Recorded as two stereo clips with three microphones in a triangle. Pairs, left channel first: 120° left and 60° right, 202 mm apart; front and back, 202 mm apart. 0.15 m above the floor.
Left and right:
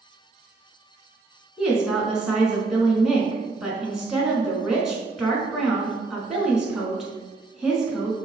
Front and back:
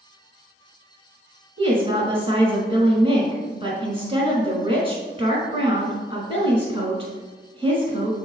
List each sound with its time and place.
1.6 s a woman speaking: 145° right, 1.4 m